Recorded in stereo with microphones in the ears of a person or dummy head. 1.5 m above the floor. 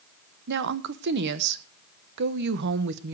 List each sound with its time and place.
0.5 s a woman speaking: 60° right (ahead or behind), 1.1 m